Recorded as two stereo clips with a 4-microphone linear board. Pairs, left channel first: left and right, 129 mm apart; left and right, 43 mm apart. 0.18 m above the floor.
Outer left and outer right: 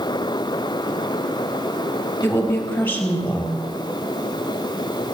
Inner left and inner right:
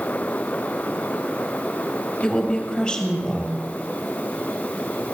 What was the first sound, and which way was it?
A woman speaking, 15° left (ahead or behind).